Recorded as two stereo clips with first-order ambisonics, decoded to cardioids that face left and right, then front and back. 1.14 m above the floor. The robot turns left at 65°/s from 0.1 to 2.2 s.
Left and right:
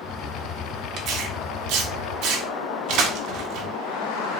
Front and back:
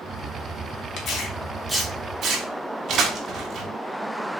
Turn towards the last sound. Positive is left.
turn(degrees=-120)